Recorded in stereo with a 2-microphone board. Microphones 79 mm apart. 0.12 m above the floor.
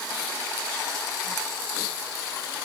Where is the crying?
No crying in this recording.